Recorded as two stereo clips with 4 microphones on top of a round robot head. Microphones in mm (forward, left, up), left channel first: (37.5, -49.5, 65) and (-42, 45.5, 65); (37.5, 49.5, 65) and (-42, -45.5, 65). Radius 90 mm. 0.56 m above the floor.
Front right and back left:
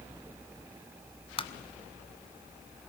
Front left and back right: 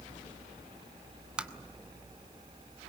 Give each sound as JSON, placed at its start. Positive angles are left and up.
{"t": 1.4, "sound": "tapping", "azimuth_deg": -50, "distance_m": 1.4}